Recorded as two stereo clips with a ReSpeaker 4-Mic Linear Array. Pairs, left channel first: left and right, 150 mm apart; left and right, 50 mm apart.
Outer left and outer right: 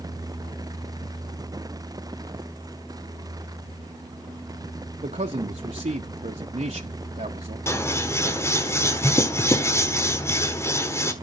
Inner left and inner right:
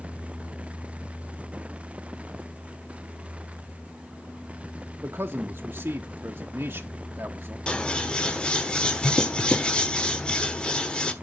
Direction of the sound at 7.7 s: 20° left (ahead or behind).